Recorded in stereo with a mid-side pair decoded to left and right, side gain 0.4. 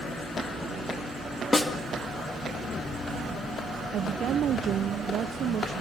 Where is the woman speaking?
65° right, 0.8 m.